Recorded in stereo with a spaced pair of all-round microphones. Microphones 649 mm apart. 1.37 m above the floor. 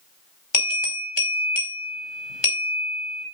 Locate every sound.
0.5 s a bell: 40° left (ahead or behind), 4.5 m